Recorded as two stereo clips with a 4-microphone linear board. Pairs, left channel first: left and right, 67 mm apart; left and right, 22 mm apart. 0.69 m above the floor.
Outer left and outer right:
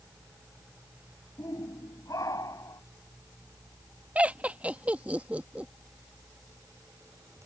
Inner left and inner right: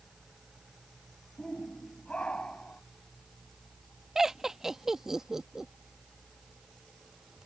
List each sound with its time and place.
1.4 s a shout: 70° left (ahead or behind); by 2.8 s 60° left (ahead or behind)
4.2 s laughter: 20° right (ahead or behind)